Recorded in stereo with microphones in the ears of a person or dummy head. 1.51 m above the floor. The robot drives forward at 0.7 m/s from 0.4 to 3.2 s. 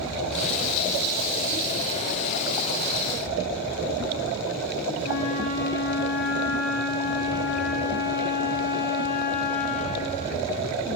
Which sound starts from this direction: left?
A flute, at 5.0 s.